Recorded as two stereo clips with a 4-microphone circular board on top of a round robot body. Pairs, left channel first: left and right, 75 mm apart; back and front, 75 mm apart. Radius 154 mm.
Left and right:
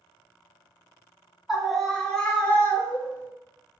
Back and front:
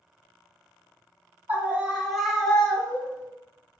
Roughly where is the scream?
Ahead.